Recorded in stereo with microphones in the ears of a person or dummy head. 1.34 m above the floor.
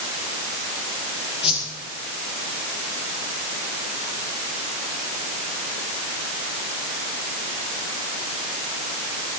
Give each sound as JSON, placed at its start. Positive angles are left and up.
{"t": 1.4, "sound": "a whoosh", "side_deg": 35, "distance_m": 5.5}